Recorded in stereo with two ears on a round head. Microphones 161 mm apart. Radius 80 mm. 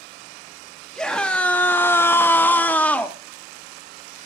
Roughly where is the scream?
Centre.